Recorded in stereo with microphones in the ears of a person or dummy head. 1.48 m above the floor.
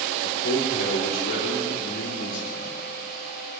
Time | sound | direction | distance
0.2 | a man speaking | 70° left (ahead or behind) | 4 m